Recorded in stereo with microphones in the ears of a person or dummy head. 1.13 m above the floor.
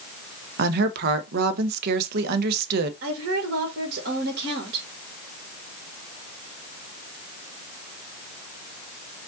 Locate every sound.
0.6 s a woman speaking: 60° right (ahead or behind), 0.8 m
3.0 s a woman speaking: 55° right (ahead or behind), 2 m